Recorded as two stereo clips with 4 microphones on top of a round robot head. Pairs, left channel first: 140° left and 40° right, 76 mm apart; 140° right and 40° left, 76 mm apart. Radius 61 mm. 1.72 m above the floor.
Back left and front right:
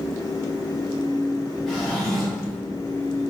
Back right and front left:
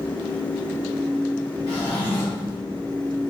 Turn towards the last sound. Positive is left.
turn(degrees=-135)